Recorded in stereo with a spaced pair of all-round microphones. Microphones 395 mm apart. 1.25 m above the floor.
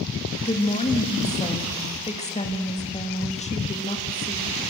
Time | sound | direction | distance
0.4 | a woman speaking | 15° left (ahead or behind) | 2 m